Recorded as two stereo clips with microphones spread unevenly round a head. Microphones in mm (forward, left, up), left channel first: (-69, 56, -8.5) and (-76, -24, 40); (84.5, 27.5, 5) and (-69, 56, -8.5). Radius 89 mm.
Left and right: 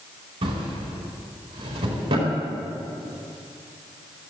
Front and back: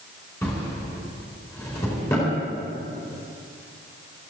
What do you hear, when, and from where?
0.4 s a drawer: 85° right, 4.5 m